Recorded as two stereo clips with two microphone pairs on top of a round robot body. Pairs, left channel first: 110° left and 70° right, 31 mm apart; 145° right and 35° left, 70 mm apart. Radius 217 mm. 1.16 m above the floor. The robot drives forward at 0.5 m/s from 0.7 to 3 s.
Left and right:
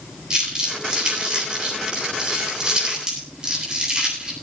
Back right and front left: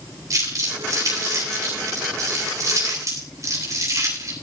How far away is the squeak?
No squeak in this recording.